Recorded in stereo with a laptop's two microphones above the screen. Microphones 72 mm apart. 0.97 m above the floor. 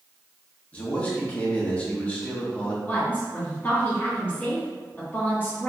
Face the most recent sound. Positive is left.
turn(degrees=20)  # may be behind; listen again after turning